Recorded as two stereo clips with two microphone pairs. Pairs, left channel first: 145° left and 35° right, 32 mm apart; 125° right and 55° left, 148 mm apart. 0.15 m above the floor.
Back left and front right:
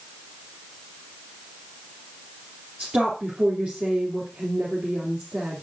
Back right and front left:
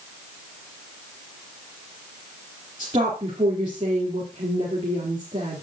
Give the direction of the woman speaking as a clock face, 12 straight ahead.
12 o'clock.